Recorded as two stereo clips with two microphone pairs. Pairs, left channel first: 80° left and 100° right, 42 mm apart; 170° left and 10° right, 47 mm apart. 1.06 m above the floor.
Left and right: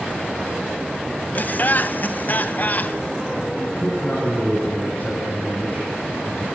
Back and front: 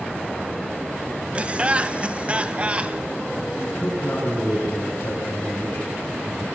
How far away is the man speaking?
About 8.5 m.